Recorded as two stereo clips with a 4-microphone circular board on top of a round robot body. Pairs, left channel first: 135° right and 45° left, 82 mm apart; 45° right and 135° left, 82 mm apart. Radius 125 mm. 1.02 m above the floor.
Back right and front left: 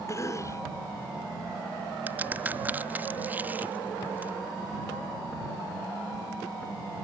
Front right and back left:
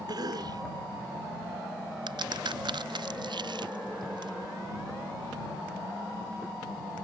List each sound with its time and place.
0.1 s a cough: 170° left
2.1 s a crack: 115° left